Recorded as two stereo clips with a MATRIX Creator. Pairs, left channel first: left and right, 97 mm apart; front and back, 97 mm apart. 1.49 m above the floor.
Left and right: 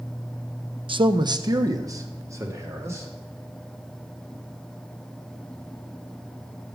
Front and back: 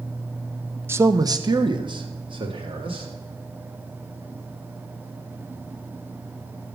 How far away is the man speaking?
About 0.6 m.